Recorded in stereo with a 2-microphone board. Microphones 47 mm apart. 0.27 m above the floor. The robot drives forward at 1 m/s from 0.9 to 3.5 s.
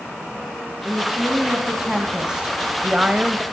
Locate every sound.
0.8 s a woman speaking: 10° right (ahead or behind), 2.5 m; by 3.4 s 20° right (ahead or behind), 1.1 m